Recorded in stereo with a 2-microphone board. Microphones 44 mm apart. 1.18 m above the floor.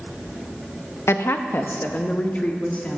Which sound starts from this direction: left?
A woman speaking, at 1.1 s.